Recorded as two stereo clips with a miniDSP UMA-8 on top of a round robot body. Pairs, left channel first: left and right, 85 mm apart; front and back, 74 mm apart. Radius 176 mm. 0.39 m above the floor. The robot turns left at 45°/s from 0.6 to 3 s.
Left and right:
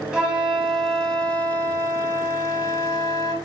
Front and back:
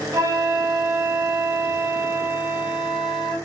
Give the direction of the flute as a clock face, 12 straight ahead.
6 o'clock.